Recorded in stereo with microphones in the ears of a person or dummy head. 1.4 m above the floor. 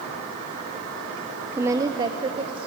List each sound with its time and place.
1.5 s a woman speaking: 15° right (ahead or behind), 0.6 m; by 2.7 s 35° right (ahead or behind), 1.3 m